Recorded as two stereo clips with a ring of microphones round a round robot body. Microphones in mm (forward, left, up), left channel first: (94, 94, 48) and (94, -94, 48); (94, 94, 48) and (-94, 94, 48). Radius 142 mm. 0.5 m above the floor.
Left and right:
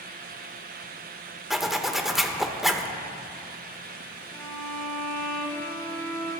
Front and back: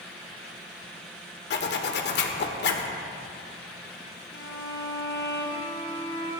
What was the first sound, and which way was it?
A zipper, straight ahead.